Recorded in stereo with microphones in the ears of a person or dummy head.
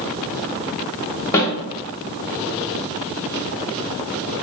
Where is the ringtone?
I don't hear a ringtone.